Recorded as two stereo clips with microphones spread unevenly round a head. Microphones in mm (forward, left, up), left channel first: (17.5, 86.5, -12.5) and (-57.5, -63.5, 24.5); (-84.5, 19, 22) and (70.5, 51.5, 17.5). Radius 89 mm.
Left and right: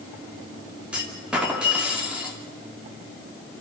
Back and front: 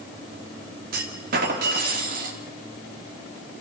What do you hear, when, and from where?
0.9 s a clunk: 30° right, 2.5 m